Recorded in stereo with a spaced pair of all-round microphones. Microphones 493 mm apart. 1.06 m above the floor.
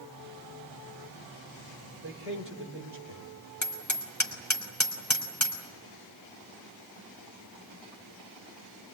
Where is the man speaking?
25° right (ahead or behind), 3.5 m.